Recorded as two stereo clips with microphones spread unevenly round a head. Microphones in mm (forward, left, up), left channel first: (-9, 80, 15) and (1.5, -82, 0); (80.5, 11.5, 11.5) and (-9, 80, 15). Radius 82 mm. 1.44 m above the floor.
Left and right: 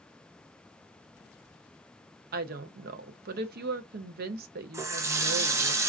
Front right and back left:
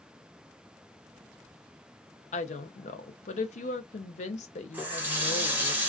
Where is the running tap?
155° right, 0.5 m.